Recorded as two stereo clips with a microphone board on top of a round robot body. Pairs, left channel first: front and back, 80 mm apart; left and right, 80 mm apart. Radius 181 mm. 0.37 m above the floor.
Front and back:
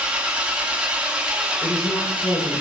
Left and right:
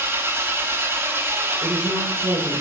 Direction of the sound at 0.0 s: 115° right.